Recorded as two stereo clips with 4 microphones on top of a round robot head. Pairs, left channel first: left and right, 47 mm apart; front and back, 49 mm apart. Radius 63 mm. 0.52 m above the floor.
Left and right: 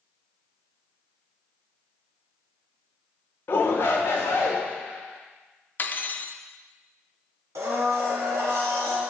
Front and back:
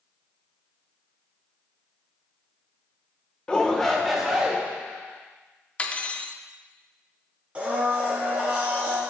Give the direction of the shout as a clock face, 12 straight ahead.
10 o'clock.